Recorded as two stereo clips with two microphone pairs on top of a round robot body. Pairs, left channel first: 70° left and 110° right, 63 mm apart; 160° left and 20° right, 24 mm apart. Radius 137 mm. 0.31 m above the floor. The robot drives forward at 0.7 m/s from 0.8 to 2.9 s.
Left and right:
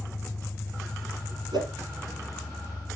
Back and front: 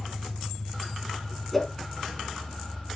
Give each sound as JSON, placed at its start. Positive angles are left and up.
{"t": 0.0, "sound": "an engine running", "azimuth_deg": 130, "distance_m": 2.5}
{"t": 1.5, "sound": "a whoosh", "azimuth_deg": -125, "distance_m": 4.0}